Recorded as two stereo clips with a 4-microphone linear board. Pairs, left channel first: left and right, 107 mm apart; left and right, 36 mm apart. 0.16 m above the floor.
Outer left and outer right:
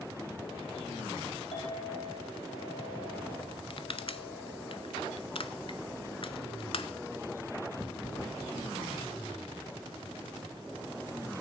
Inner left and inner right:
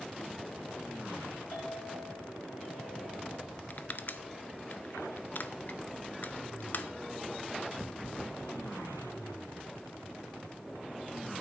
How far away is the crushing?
About 0.5 m.